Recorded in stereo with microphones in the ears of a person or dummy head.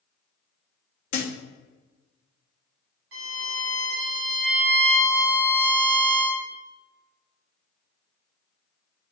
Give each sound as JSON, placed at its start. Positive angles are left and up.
{"t": 1.1, "sound": "a thud", "side_deg": 50, "distance_m": 0.8}
{"t": 3.1, "sound": "a violin", "side_deg": -70, "distance_m": 1.7}